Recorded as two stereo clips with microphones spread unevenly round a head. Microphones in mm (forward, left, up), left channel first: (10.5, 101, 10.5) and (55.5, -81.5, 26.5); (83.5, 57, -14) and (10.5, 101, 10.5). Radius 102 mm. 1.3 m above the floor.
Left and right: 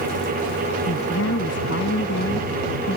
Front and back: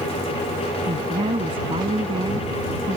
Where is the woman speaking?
135° left; by 3.0 s 150° left.